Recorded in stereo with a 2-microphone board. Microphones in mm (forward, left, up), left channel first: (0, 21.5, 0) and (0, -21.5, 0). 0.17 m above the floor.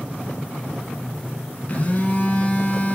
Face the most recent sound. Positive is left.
turn(degrees=35)  # may be behind; listen again after turning